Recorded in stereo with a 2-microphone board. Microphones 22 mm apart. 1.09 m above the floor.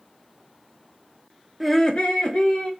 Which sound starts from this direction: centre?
Laughter, at 1.6 s.